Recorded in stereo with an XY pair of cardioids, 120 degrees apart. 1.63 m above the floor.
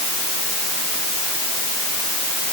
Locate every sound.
Only background noise.